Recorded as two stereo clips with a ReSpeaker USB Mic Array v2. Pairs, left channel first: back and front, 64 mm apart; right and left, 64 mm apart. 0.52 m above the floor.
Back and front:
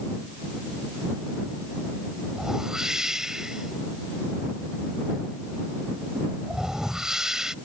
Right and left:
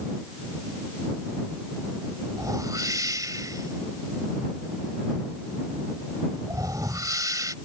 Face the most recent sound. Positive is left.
turn(degrees=80)